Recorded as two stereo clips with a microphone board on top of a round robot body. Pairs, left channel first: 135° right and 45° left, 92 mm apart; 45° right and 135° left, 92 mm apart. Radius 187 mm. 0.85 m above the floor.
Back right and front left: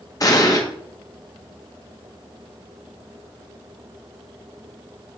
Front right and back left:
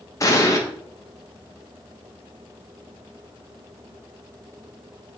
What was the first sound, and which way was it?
An explosion, 95° right.